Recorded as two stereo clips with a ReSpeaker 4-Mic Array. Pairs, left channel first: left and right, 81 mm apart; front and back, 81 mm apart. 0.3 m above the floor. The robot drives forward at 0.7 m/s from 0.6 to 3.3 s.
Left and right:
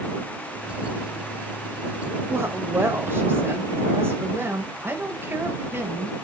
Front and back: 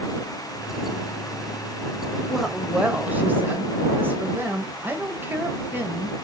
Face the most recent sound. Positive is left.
turn(degrees=-130)